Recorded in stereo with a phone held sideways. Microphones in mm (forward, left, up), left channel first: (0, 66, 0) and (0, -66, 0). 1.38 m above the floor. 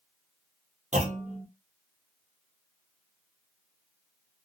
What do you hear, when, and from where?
0.9 s a clunk: 65° right (ahead or behind), 1.2 m